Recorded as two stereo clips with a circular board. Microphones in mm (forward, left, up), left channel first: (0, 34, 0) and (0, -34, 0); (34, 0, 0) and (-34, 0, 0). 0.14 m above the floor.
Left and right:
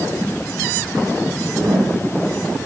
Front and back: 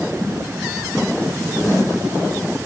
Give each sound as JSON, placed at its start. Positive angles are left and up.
{"t": 1.3, "sound": "a whoosh", "azimuth_deg": -80, "distance_m": 6.0}